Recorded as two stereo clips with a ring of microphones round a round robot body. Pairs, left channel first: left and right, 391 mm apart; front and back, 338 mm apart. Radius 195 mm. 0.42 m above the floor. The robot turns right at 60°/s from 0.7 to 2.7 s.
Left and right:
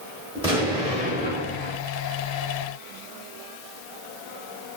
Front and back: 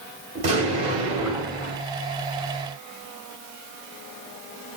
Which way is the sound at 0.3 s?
145° right.